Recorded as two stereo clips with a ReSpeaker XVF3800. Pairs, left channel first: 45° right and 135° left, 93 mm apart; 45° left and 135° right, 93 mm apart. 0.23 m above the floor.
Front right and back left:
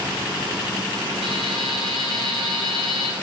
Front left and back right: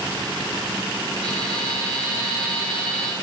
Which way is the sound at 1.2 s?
35° right.